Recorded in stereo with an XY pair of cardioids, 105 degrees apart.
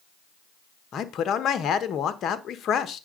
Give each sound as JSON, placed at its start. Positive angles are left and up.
{"t": 0.9, "sound": "a man speaking", "azimuth_deg": 60, "distance_m": 1.2}